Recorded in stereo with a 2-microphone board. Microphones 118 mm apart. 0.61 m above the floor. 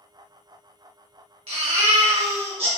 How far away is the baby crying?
About 0.9 m.